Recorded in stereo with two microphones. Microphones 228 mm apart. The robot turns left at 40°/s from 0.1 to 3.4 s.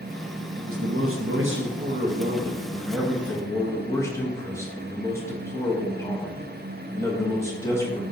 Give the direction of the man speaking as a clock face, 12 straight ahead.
3 o'clock.